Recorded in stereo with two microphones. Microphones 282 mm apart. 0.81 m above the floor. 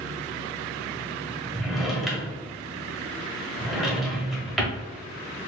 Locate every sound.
1.6 s a drawer: centre (ahead or behind), 0.9 m